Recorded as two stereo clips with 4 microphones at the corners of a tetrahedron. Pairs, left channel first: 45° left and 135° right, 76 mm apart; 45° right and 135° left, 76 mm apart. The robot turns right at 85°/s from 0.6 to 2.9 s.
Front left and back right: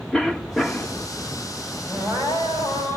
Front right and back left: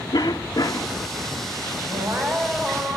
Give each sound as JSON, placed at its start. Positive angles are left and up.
{"t": 0.1, "sound": "a cough", "azimuth_deg": -35, "distance_m": 1.4}
{"t": 1.9, "sound": "crying", "azimuth_deg": 160, "distance_m": 7.0}